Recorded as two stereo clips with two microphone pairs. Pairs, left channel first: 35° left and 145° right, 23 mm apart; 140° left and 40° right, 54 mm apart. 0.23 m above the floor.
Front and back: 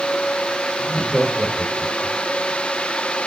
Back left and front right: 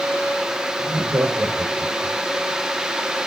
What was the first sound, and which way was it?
Laughter, 55° right.